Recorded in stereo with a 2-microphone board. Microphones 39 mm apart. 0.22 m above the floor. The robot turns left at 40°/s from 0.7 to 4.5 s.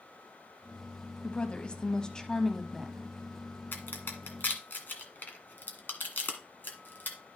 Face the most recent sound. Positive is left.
turn(degrees=55)  # may be behind; listen again after turning